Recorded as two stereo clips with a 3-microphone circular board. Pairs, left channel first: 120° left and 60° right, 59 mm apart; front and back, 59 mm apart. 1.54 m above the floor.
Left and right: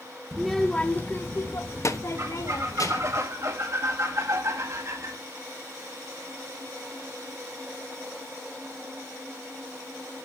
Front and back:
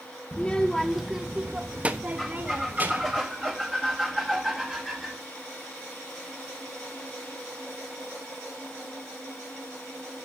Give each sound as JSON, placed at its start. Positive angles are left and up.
{"t": 0.3, "sound": "a child speaking", "azimuth_deg": 10, "distance_m": 0.7}
{"t": 2.2, "sound": "a squeak", "azimuth_deg": -90, "distance_m": 1.9}